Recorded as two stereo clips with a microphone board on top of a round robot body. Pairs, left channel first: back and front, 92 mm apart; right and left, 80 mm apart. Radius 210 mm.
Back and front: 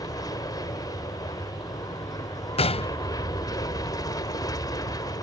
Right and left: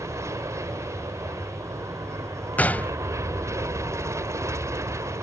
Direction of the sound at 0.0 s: 135° left.